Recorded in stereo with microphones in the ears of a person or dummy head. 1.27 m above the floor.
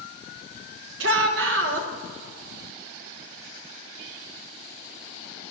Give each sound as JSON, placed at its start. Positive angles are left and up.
{"t": 1.0, "sound": "a shout", "side_deg": -70, "distance_m": 1.5}